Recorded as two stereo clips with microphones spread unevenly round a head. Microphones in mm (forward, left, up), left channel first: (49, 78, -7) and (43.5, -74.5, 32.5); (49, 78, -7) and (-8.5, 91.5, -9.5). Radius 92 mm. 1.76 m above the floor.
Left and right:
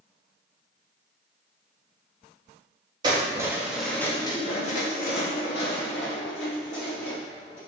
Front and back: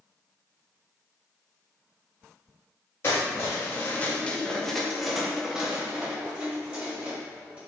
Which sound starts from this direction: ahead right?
Keys jangling, at 3.0 s.